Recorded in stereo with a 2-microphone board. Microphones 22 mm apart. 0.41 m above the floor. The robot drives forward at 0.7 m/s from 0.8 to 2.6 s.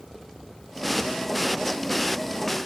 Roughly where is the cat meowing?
No cat meowing in this recording.